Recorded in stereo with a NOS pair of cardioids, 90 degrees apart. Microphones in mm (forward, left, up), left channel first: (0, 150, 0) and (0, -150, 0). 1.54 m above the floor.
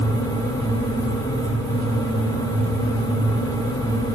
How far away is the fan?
About 1.0 m.